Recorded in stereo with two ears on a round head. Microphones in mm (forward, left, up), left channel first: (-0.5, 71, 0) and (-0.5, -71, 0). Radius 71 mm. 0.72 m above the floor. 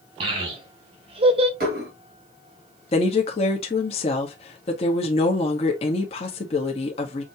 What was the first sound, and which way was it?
A child speaking, 40° right (ahead or behind).